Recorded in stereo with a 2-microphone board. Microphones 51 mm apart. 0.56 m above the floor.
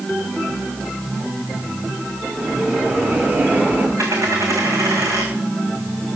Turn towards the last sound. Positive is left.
turn(degrees=-85)